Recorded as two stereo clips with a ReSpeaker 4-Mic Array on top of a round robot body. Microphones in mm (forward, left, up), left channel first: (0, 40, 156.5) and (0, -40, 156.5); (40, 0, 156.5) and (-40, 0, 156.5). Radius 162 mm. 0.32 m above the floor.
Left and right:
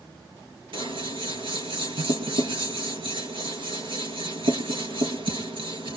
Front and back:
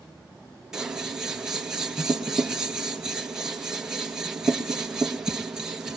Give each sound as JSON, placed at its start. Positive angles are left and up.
{"t": 0.7, "sound": "scissors", "azimuth_deg": -100, "distance_m": 2.0}